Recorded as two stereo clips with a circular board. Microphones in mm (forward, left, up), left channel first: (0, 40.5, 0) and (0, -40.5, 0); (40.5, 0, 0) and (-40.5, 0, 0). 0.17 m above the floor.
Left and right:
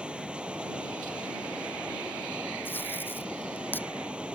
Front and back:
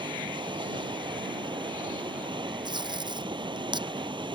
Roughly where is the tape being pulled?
Behind left.